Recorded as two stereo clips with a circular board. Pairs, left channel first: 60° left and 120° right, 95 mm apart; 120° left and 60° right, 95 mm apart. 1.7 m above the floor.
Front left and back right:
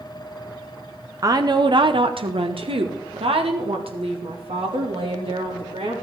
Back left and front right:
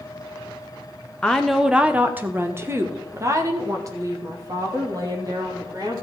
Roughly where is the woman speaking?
Behind.